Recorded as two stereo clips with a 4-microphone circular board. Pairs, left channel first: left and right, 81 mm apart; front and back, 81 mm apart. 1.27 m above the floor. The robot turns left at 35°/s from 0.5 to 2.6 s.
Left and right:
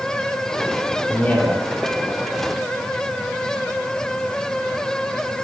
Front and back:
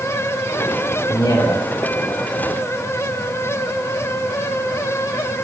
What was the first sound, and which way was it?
A man speaking, 30° left.